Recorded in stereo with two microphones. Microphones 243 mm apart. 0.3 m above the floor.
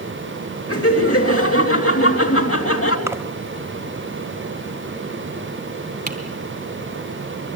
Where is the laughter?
65° left (ahead or behind), 3 m.